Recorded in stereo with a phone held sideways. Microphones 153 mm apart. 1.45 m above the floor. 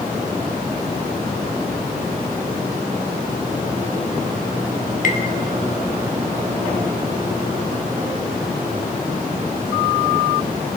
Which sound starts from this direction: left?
Tapping, at 5.0 s.